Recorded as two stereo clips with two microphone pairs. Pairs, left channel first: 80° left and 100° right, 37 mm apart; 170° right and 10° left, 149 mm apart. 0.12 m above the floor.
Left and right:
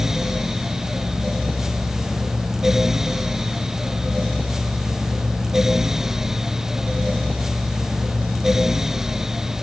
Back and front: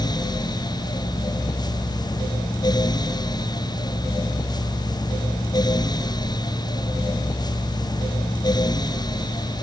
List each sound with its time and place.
Only background noise.